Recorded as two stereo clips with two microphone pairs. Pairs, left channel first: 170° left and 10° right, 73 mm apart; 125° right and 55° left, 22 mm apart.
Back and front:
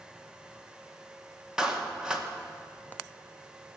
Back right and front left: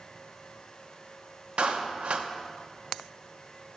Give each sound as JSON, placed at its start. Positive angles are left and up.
{"t": 1.6, "sound": "a clap", "azimuth_deg": 70, "distance_m": 0.9}